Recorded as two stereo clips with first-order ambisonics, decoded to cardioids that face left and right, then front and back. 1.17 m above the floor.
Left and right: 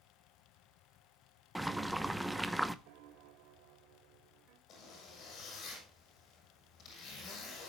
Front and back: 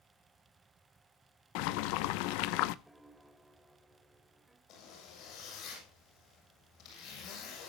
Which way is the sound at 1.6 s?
Straight ahead.